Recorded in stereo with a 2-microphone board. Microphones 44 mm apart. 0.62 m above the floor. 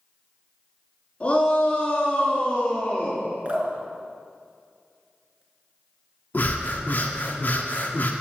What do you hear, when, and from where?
1.2 s a shout: 25° left (ahead or behind), 6 m
3.5 s dripping: 25° right (ahead or behind), 3.5 m
6.3 s breathing: 45° left (ahead or behind), 1.5 m